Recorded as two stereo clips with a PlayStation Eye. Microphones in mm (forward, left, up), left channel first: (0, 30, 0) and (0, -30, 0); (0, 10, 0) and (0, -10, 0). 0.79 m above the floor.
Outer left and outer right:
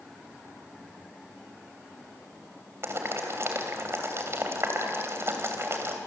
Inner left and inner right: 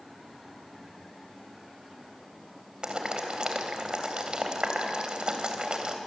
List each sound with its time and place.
2.8 s boiling: 45° right (ahead or behind), 3 m